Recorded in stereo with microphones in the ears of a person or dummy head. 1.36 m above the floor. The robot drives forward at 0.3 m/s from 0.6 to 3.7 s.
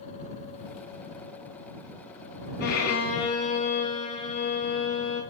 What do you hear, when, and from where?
2.6 s a violin: 55° left (ahead or behind), 0.6 m; by 5.2 s 35° left (ahead or behind), 0.8 m